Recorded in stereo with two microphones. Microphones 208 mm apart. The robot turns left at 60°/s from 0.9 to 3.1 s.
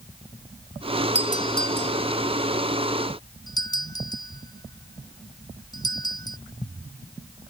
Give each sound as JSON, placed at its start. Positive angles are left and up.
{"t": 1.1, "sound": "a doorbell", "side_deg": 35}